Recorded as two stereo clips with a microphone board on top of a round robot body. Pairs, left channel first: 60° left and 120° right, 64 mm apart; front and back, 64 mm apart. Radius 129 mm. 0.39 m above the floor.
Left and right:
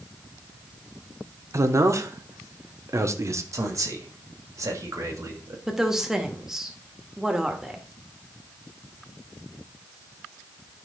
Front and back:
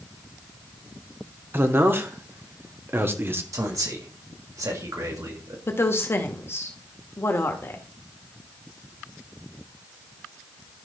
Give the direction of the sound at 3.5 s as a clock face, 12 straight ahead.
5 o'clock.